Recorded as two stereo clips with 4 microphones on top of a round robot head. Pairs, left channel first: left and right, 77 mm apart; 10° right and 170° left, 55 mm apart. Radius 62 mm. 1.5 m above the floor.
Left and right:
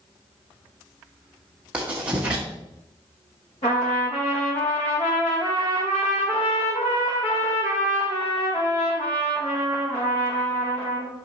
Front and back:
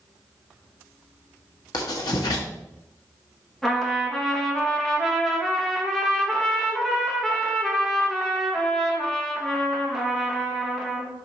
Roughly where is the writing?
Ahead.